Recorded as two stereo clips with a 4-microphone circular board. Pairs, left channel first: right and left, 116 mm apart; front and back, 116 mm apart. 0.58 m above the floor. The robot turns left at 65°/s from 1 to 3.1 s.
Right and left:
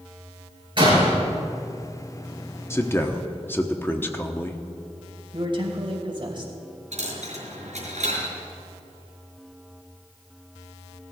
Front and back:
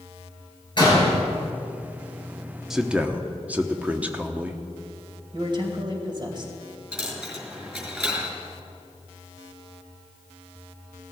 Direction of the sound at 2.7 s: 100° right.